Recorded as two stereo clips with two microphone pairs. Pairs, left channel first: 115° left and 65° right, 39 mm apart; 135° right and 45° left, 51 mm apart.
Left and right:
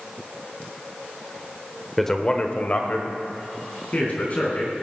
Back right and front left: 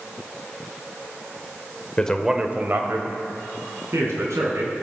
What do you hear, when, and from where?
2.0 s a man speaking: 160° right, 0.9 m; by 4.7 s 65° left, 4 m